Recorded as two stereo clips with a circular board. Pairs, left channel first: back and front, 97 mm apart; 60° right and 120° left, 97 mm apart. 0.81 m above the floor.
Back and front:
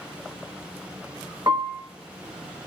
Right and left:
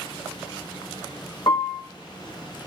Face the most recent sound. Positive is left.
turn(degrees=-30)